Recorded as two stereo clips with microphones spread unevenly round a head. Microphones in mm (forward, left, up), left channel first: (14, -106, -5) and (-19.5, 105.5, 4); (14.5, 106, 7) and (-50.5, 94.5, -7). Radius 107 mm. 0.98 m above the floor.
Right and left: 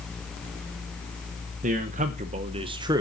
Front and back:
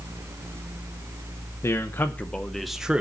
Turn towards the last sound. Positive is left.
turn(degrees=165)